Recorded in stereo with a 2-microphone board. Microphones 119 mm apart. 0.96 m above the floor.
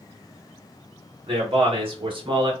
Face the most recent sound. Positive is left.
turn(degrees=-40)  # may be behind; listen again after turning